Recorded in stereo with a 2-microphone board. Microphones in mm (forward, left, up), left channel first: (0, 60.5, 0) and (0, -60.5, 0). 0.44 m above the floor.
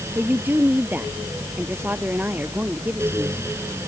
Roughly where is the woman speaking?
Centre.